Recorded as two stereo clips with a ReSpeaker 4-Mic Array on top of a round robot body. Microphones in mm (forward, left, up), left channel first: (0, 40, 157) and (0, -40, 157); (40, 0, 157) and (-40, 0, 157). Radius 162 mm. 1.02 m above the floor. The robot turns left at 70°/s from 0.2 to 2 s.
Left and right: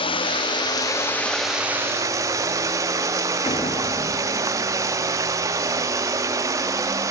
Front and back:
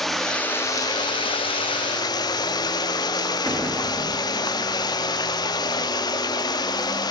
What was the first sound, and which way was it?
Running water, 85° left.